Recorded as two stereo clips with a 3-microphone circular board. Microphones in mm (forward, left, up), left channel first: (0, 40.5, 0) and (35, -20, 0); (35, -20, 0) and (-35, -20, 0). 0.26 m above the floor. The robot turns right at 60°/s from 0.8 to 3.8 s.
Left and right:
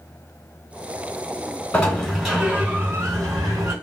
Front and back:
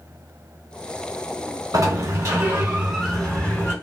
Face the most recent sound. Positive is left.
turn(degrees=-50)